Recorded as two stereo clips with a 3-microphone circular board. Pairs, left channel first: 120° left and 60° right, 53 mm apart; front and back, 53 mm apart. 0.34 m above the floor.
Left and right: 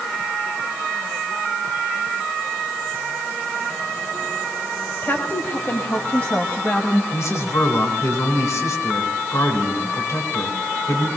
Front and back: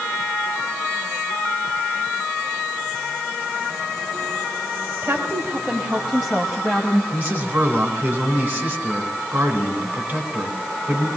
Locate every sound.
5.0 s a woman speaking: 145° left, 1.6 m; by 7.0 s 75° left, 2 m
7.1 s a man speaking: 120° left, 3 m